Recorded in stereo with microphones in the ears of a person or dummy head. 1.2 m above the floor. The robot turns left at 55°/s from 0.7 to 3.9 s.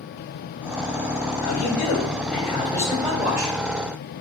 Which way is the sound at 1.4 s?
90° left.